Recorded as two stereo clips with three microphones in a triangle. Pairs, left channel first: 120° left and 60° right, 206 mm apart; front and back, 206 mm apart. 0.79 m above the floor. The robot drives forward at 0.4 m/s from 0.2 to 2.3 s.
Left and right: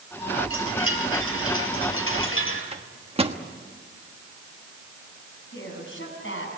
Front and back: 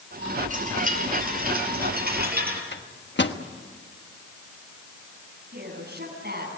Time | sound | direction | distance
0.5 | a chime | 125° left | 3.5 m
2.7 | a microwave | 5° right | 1.2 m
5.5 | a woman speaking | 140° left | 7 m